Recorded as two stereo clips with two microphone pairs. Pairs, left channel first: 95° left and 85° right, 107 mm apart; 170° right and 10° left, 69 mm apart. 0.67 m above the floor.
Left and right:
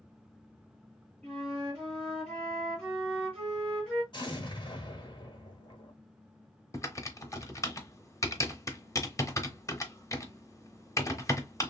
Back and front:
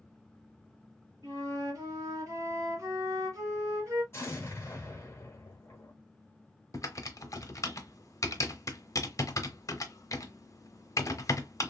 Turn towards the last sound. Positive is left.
turn(degrees=155)